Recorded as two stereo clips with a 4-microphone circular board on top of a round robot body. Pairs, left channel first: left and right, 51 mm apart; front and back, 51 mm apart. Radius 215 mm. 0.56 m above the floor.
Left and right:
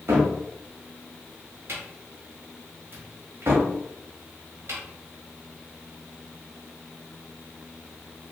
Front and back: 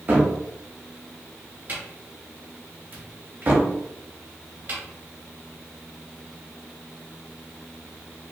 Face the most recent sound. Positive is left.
turn(degrees=-125)